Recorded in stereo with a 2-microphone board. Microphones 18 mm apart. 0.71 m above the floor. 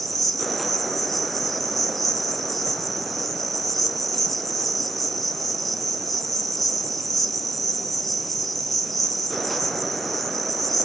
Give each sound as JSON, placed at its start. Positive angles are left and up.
{"t": 0.0, "sound": "an insect", "side_deg": 10, "distance_m": 1.4}